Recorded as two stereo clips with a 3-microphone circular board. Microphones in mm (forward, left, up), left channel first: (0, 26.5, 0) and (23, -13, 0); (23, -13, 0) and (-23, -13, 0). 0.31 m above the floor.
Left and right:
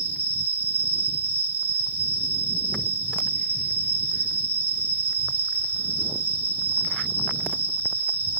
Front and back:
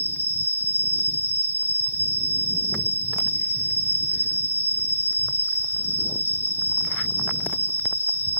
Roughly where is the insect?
Ahead.